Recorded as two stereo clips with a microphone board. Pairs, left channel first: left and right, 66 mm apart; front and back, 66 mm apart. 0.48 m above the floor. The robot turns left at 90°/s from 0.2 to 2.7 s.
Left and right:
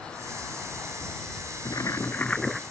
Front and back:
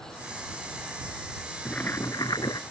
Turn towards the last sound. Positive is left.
turn(degrees=-15)